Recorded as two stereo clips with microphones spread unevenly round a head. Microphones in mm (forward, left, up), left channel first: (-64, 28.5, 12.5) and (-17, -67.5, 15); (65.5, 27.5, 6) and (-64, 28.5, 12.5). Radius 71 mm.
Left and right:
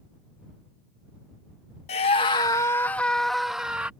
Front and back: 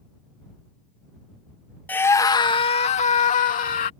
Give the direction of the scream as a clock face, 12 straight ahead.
9 o'clock.